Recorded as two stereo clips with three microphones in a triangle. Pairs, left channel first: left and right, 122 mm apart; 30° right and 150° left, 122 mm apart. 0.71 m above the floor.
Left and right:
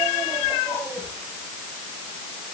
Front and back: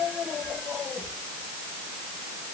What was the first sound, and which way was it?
Only background noise.